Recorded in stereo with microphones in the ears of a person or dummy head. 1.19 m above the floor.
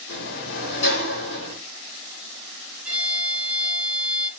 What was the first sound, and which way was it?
A sliding door, 65° left (ahead or behind).